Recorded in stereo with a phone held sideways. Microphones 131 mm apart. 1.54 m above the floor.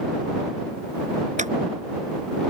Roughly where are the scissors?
Right.